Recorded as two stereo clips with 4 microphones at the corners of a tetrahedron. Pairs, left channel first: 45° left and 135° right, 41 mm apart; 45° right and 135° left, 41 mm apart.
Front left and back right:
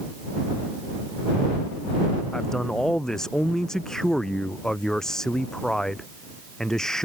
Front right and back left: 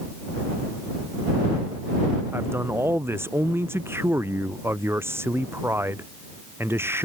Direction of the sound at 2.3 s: 125° left.